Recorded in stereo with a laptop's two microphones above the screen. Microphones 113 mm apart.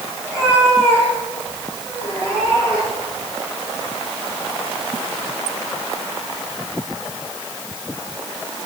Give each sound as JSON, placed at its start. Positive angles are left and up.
{"t": 0.2, "sound": "a cat meowing", "side_deg": -20, "distance_m": 7.0}